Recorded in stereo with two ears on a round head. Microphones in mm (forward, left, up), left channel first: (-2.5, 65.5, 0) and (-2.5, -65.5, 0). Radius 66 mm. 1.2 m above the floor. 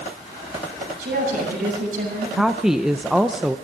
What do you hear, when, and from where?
1.0 s a woman speaking: 60° right (ahead or behind), 8 m
2.4 s a woman speaking: 5° right (ahead or behind), 0.5 m